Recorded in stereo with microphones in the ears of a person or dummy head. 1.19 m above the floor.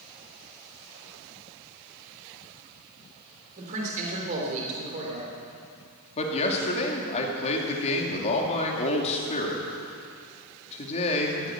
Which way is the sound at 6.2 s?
40° left (ahead or behind).